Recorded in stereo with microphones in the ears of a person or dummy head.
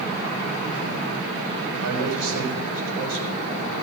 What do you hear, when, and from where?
1.8 s a man speaking: 80° right, 7.5 m